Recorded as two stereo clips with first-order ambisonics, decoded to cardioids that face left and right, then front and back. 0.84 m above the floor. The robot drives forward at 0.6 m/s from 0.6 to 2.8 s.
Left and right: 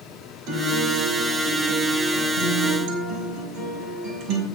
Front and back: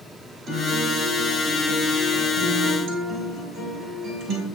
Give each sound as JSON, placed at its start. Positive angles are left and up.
{"t": 0.5, "sound": "a guitar", "azimuth_deg": -125, "distance_m": 3.5}